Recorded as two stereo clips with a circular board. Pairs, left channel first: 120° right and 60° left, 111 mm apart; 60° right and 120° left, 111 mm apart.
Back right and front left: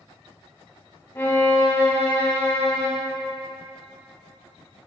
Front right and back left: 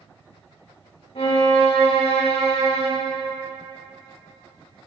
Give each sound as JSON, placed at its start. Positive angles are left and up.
{"t": 1.1, "sound": "a violin", "azimuth_deg": -60, "distance_m": 1.5}